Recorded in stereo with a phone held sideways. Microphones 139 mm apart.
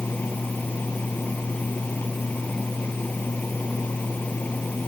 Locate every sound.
0.0 s a fan: 10° left (ahead or behind)